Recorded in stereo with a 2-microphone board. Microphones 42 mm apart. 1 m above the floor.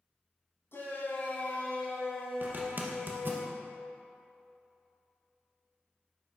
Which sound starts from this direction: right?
A zipper, at 2.4 s.